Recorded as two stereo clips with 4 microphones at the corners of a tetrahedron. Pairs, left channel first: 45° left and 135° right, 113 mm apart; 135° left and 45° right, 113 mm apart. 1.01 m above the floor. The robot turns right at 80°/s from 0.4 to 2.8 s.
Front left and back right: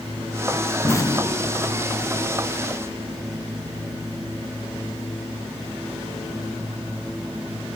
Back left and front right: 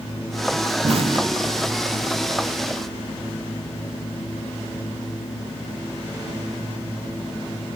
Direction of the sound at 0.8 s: 25° right.